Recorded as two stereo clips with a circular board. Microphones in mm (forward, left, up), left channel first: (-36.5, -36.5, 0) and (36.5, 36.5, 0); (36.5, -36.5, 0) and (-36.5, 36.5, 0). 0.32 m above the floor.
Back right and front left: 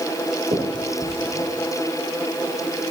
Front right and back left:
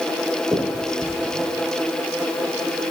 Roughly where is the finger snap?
Ahead left.